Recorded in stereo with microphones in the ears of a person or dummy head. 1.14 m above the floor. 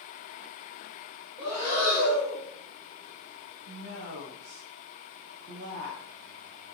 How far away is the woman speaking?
About 1.3 m.